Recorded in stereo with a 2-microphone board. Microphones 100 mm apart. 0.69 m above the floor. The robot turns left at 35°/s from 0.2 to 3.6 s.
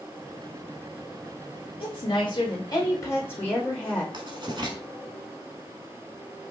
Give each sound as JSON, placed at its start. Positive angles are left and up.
{"t": 1.8, "sound": "a woman speaking", "azimuth_deg": 75, "distance_m": 1.9}
{"t": 4.1, "sound": "writing", "side_deg": -50, "distance_m": 1.0}